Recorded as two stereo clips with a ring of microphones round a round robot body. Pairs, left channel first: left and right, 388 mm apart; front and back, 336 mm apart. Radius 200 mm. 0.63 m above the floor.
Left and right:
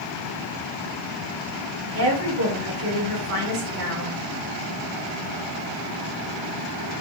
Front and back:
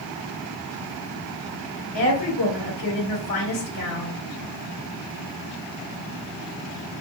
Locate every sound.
1.9 s a woman speaking: 35° right, 1.9 m